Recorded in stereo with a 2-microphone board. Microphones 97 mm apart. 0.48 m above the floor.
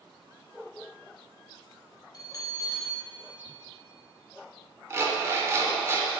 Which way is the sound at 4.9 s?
25° right (ahead or behind).